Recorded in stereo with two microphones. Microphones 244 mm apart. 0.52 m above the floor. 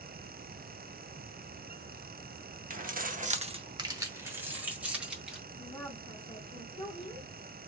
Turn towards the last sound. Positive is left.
turn(degrees=20)  # may be behind; listen again after turning